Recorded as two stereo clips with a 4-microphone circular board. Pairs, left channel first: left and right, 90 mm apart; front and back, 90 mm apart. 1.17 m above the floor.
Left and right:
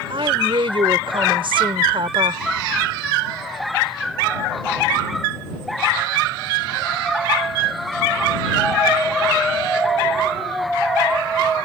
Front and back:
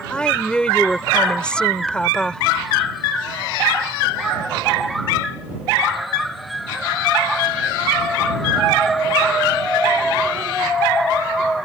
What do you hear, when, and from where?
0.1 s a woman speaking: 80° right